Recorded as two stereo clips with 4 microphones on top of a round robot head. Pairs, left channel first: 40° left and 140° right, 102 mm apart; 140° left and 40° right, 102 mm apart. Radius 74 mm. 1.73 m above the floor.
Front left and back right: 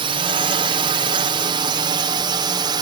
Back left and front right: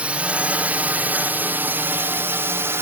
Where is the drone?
120° right; by 2.8 s 105° right.